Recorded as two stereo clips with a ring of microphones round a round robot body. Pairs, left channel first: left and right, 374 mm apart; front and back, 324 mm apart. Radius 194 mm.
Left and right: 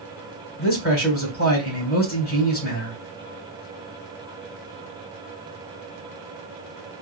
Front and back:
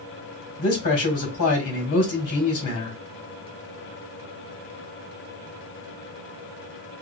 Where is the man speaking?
25° left, 2.5 m.